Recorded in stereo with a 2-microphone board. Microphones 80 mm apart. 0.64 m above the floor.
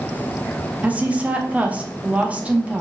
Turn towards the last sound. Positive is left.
turn(degrees=-20)  # may be behind; listen again after turning